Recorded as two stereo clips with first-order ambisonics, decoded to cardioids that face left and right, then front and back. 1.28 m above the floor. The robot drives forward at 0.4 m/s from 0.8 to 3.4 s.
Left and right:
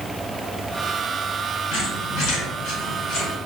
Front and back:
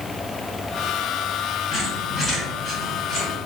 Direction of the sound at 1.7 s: 85° left.